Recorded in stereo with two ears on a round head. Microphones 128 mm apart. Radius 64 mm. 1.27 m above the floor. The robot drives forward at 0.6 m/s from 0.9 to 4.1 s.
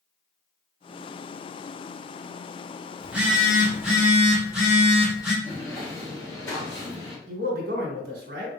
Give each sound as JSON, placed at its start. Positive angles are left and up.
{"t": 3.0, "sound": "a phone buzzing", "side_deg": -10, "distance_m": 1.1}
{"t": 5.4, "sound": "footsteps", "side_deg": 15, "distance_m": 1.4}
{"t": 7.3, "sound": "a man speaking", "side_deg": -75, "distance_m": 1.3}